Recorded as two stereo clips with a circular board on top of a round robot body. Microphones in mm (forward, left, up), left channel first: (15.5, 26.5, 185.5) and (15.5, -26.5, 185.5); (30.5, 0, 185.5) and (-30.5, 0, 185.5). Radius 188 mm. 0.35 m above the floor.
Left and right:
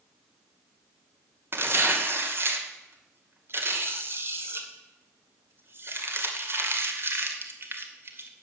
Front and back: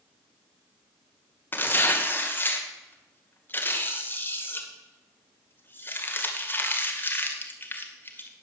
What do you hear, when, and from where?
1.5 s tearing paper: 55° right, 2.5 m